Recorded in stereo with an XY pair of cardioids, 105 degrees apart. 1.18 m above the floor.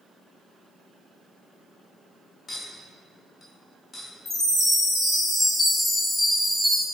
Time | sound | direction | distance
2.5 | a clink | 30° left | 0.7 m
4.2 | a chime | 30° left | 1.1 m